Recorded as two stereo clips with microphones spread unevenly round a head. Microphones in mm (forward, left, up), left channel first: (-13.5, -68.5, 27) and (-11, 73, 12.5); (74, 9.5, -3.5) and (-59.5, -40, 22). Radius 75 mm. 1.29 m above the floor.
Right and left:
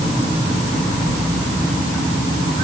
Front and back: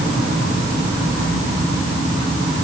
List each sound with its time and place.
Only background noise.